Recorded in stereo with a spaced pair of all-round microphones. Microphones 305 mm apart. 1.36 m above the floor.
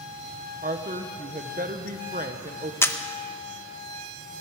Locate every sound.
0.6 s a woman speaking: 25° right (ahead or behind), 1.1 m
2.8 s a camera shutter: 10° left (ahead or behind), 0.7 m